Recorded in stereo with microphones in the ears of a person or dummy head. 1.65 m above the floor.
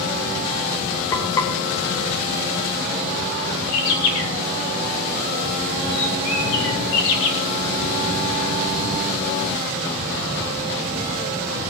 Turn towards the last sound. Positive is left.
turn(degrees=80)